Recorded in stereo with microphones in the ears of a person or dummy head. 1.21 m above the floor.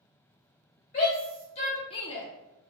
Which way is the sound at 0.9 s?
35° left (ahead or behind).